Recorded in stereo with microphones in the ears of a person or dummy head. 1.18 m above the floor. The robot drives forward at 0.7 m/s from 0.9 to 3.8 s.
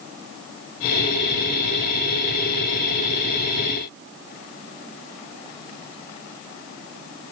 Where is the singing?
I don't hear singing.